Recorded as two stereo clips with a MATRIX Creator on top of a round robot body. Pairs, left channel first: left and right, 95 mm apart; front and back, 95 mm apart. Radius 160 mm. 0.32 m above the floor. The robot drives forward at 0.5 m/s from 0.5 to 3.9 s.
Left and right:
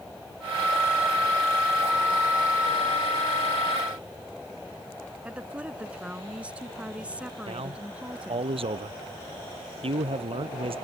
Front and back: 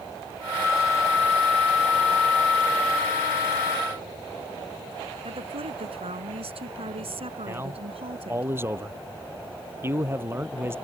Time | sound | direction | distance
5.2 | a woman speaking | 170° right | ?
7.5 | a man speaking | 115° right | ?